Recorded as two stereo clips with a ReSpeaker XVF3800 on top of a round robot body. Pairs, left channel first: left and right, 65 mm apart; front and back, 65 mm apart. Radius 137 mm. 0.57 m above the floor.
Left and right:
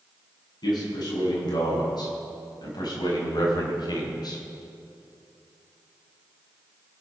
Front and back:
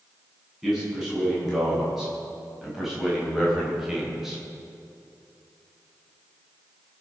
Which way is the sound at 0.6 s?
95° left.